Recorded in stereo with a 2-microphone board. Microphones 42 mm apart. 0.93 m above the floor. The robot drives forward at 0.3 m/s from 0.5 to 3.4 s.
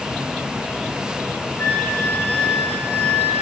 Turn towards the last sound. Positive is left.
turn(degrees=35)  # may be behind; listen again after turning